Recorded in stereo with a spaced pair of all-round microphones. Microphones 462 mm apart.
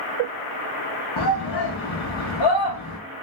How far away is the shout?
About 0.8 m.